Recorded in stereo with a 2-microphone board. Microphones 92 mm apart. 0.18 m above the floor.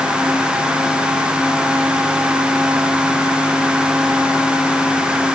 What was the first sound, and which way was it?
Only background noise.